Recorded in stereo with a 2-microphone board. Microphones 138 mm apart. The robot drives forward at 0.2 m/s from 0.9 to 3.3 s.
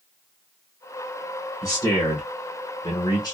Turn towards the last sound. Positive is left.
turn(degrees=30)  # may be behind; listen again after turning